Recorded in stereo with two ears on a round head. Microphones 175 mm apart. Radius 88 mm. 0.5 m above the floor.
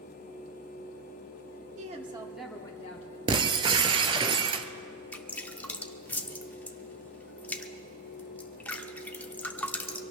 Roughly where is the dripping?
Centre.